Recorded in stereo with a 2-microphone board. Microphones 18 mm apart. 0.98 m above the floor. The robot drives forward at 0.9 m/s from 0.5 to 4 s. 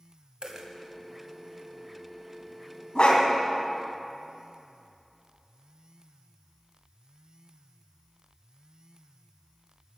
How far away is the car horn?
No car horn in this recording.